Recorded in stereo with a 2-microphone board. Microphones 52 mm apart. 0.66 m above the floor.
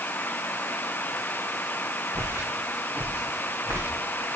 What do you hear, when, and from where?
2.1 s footsteps: 60° right (ahead or behind), 3.5 m; by 3.9 s 65° right (ahead or behind), 4.5 m